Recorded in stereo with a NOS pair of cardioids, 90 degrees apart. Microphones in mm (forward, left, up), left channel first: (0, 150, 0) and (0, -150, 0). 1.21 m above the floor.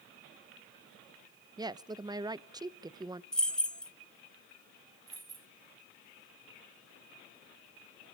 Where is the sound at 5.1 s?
30° right, 1.6 m.